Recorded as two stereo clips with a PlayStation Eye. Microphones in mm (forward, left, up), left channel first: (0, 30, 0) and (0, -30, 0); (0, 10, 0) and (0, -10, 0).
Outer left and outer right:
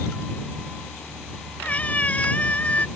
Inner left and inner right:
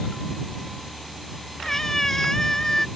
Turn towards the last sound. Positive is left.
turn(degrees=20)  # may be behind; listen again after turning